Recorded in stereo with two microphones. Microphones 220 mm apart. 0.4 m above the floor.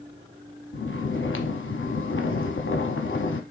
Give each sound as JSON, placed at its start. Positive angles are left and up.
{"t": 0.7, "sound": "snoring", "side_deg": 70, "distance_m": 0.8}